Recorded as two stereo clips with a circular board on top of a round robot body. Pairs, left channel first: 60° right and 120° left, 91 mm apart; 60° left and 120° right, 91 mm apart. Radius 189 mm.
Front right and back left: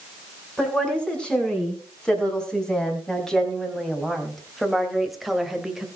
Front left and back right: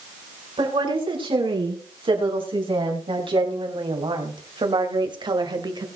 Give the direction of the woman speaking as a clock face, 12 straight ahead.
5 o'clock.